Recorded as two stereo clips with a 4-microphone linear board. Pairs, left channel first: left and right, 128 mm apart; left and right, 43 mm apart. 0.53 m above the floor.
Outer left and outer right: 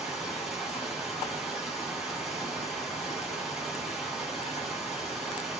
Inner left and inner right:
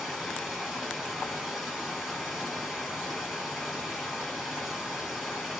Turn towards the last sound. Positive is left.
turn(degrees=-5)  # may be behind; listen again after turning